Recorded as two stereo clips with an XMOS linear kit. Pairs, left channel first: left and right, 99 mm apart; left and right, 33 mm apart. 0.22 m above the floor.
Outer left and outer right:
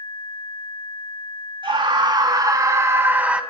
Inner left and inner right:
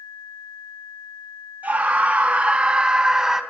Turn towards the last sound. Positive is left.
turn(degrees=-10)  # may be behind; listen again after turning